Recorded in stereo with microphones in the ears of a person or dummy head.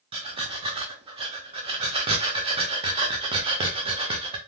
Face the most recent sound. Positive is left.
turn(degrees=-25)  # may be behind; listen again after turning